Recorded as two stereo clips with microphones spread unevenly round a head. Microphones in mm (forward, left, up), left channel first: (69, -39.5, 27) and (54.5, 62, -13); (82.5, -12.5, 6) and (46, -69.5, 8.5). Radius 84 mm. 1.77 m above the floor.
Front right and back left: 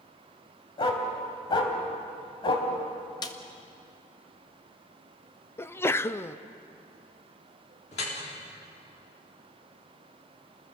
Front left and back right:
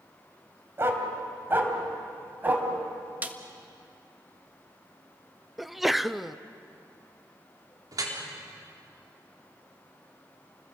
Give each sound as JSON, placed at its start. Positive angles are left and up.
{"t": 0.8, "sound": "a dog barking", "azimuth_deg": -75, "distance_m": 3.0}
{"t": 3.2, "sound": "a snare drum", "azimuth_deg": -65, "distance_m": 1.6}
{"t": 5.6, "sound": "a sneeze", "azimuth_deg": -40, "distance_m": 0.6}
{"t": 7.9, "sound": "dripping", "azimuth_deg": -100, "distance_m": 4.0}